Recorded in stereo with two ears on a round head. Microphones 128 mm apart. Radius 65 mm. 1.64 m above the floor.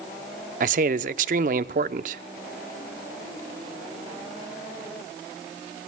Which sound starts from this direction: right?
A man speaking, at 0.6 s.